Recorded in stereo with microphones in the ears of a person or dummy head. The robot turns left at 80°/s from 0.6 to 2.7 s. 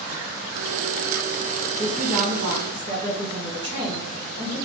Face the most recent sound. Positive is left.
turn(degrees=-150)